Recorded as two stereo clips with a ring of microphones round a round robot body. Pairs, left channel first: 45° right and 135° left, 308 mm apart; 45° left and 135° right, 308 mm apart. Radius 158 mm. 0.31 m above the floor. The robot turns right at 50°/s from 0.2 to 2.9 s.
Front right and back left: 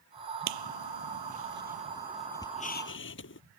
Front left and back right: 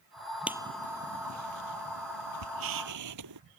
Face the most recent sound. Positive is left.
turn(degrees=-100)